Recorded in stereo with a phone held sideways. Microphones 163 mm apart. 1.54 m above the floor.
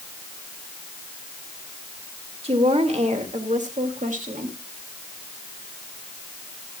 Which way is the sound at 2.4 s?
40° right (ahead or behind).